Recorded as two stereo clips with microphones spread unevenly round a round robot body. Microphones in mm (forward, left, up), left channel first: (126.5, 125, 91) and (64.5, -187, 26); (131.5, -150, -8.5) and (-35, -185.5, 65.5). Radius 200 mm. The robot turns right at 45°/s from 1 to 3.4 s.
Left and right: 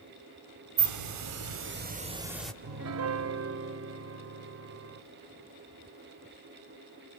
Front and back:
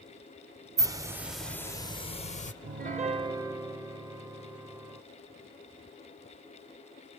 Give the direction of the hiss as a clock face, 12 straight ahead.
3 o'clock.